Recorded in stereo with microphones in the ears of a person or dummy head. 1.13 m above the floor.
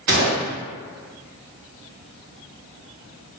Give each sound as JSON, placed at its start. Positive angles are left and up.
{"t": 0.1, "sound": "a gunshot", "side_deg": -35, "distance_m": 0.7}